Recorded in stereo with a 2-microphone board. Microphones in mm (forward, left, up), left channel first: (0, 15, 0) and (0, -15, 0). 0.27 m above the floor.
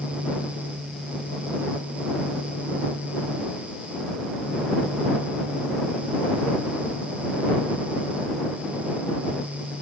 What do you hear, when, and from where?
Only background noise.